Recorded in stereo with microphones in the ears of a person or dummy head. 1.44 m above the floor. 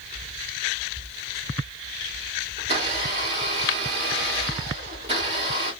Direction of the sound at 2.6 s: 25° right (ahead or behind).